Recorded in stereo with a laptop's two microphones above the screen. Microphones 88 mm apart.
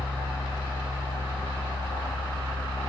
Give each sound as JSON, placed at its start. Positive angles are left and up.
{"t": 0.0, "sound": "a fan", "side_deg": 70, "distance_m": 1.4}